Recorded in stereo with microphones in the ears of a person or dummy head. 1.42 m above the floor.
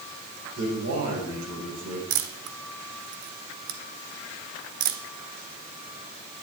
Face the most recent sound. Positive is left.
turn(degrees=-45)  # may be behind; listen again after turning